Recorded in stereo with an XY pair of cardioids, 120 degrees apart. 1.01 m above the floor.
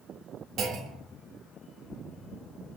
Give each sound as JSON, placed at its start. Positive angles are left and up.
{"t": 0.6, "sound": "a clunk", "azimuth_deg": -60, "distance_m": 0.6}